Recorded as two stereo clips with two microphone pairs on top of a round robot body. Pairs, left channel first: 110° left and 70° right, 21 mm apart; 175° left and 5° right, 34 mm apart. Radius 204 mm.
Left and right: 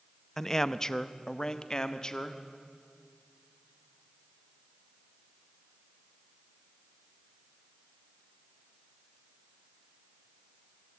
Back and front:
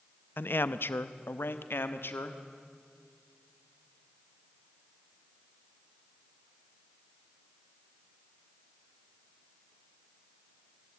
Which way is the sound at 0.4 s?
175° right.